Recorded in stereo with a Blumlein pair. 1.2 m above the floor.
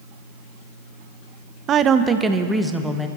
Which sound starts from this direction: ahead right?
A woman speaking, at 1.7 s.